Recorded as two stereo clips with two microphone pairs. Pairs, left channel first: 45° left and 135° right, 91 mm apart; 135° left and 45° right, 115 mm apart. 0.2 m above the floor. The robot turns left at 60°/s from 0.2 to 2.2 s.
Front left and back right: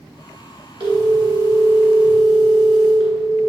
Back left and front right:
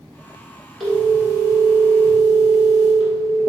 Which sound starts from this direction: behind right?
A phone ringing, at 0.8 s.